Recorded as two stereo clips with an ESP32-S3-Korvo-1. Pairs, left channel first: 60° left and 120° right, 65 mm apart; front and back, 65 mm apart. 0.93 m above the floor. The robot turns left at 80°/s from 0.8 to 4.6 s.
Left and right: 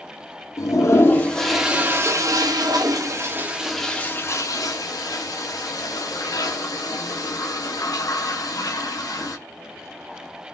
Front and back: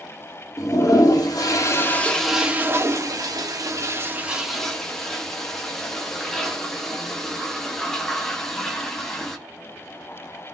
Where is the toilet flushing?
25° left, 0.6 m; by 9.4 s 85° left, 0.6 m.